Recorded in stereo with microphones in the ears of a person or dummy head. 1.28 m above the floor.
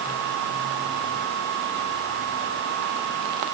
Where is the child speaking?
No child speaking in this recording.